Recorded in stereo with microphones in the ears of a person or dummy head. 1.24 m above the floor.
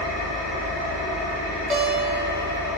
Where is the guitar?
35° right (ahead or behind), 0.7 m.